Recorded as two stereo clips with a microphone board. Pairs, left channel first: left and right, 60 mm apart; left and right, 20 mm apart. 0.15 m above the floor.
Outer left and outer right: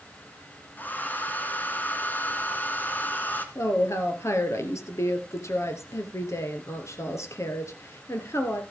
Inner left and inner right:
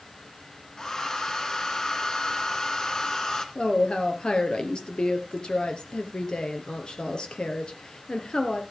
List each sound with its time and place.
0.8 s a hair dryer: 30° left (ahead or behind), 2 m
3.5 s a woman speaking: 50° left (ahead or behind), 2.5 m